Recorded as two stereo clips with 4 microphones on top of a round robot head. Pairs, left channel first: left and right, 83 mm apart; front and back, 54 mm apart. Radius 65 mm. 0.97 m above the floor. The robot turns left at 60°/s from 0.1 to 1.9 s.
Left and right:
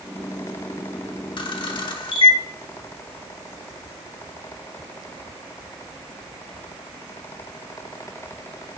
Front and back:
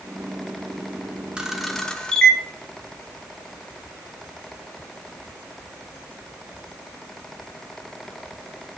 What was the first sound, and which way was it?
A camera shutter, 105° left.